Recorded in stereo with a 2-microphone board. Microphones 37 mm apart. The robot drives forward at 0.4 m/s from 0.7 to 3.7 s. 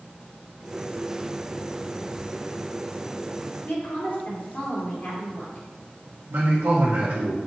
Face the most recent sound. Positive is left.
turn(degrees=-85)